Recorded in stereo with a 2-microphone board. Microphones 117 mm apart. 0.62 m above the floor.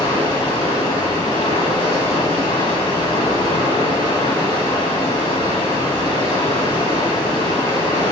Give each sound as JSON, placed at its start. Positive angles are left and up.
{"t": 0.0, "sound": "running water", "side_deg": 50, "distance_m": 3.0}